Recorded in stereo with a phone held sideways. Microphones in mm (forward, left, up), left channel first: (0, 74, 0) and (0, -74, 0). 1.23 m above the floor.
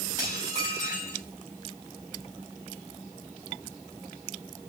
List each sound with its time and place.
0.2 s dishes clattering: 25° right (ahead or behind), 6.5 m